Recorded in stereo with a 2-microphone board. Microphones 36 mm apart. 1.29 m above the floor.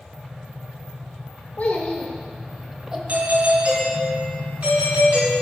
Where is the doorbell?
55° right (ahead or behind), 3 m.